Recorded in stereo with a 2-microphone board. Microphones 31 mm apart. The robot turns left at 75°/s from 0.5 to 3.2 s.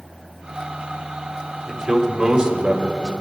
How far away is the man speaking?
About 1.3 m.